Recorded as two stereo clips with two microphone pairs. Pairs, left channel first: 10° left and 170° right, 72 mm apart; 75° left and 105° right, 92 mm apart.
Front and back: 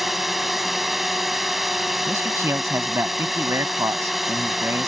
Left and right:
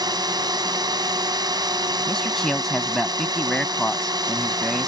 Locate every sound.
0.0 s a drone: 85° right
2.1 s a man speaking: 160° left